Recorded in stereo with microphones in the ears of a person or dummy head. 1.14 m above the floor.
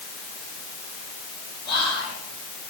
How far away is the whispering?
About 9 m.